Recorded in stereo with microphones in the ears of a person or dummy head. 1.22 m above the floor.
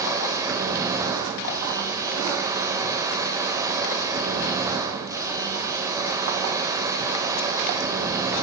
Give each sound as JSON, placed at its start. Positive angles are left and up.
{"t": 0.0, "sound": "a machine running", "side_deg": -20, "distance_m": 3.0}